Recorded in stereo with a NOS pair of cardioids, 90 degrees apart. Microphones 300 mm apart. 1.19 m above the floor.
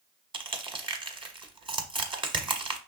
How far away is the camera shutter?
No camera shutter in this recording.